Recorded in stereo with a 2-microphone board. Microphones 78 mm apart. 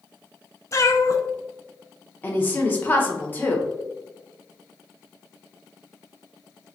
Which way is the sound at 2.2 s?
25° left (ahead or behind).